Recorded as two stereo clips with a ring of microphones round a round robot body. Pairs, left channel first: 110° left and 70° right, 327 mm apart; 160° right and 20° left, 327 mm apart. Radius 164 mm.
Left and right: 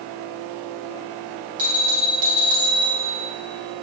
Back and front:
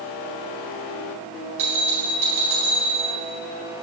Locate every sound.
1.6 s a bell: straight ahead, 4 m